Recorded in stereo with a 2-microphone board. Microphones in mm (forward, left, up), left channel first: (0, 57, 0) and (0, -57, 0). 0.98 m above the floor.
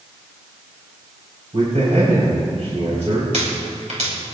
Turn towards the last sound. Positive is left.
turn(degrees=-85)